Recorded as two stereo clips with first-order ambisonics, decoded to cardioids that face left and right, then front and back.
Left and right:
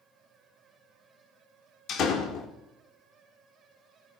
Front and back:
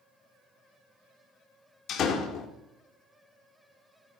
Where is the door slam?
50° left, 1.3 m.